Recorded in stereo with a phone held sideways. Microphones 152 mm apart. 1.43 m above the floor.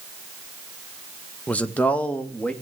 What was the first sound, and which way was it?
A man speaking, 10° left (ahead or behind).